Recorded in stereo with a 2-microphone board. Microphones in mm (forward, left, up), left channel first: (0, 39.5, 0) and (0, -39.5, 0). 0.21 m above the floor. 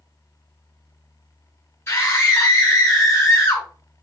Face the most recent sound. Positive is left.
turn(degrees=30)  # may be behind; listen again after turning